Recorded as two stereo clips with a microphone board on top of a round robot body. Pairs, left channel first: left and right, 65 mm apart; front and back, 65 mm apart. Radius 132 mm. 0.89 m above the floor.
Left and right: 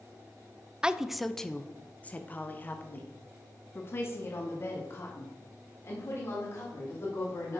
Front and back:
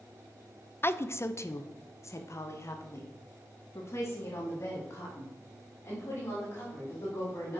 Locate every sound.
0.8 s a woman speaking: 20° right, 0.8 m; by 7.6 s 50° left, 4.5 m